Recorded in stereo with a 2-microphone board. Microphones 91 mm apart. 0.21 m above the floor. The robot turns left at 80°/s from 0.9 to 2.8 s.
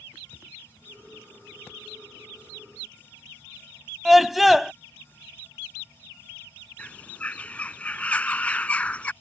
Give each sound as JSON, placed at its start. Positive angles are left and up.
{"t": 4.0, "sound": "a scream", "side_deg": 0}
{"t": 6.8, "sound": "a bird", "side_deg": 15}